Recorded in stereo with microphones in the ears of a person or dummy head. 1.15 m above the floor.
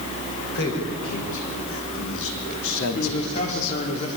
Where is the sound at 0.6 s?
75° left (ahead or behind), 5 m.